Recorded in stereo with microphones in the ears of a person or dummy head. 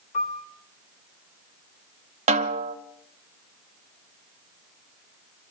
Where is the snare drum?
40° right (ahead or behind), 0.9 m.